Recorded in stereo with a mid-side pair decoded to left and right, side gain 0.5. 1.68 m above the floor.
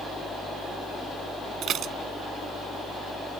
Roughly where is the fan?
Ahead.